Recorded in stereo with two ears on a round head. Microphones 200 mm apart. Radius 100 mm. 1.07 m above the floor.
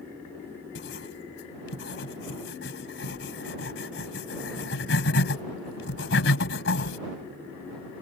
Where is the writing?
60° left (ahead or behind).